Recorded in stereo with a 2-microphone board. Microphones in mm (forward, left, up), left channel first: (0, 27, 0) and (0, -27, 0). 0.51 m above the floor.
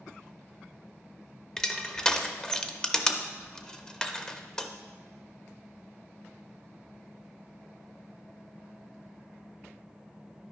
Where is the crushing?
15° left (ahead or behind), 0.6 m.